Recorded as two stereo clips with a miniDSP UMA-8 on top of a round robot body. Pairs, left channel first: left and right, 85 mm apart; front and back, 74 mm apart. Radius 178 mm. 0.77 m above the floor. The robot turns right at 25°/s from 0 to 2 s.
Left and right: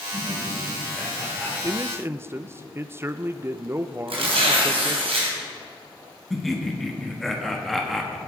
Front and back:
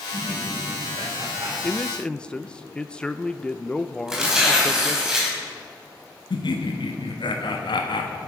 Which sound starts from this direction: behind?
Laughter, at 0.1 s.